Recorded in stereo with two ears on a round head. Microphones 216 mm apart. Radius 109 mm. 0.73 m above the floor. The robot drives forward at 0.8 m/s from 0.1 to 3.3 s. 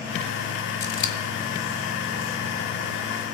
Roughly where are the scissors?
Left.